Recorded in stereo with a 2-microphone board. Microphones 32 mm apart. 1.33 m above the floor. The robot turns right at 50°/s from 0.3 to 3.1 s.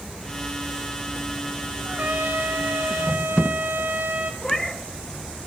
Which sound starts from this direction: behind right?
A trumpet, at 1.9 s.